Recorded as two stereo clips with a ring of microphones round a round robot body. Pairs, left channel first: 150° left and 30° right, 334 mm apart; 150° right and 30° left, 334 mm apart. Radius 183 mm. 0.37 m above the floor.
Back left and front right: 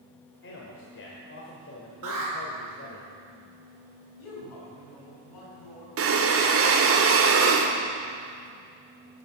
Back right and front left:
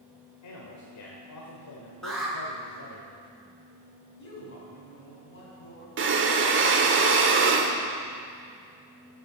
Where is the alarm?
60° right, 5 m.